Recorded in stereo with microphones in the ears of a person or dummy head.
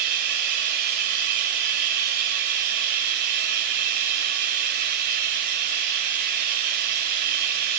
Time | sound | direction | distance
0.0 | running water | 45° right (ahead or behind) | 1.5 m